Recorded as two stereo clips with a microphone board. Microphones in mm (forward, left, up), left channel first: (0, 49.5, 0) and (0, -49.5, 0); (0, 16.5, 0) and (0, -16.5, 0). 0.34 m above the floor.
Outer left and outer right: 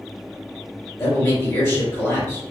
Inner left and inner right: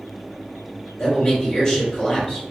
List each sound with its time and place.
1.0 s a man speaking: 25° left (ahead or behind), 1.6 m